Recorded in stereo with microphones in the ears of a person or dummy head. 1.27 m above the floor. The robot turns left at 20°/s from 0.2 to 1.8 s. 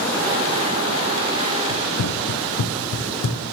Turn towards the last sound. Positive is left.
turn(degrees=65)  # may be behind; listen again after turning